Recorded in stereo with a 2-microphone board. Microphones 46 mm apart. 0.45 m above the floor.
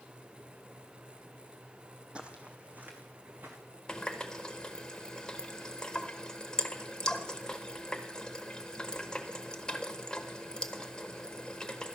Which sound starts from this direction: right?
Footsteps, at 2.1 s.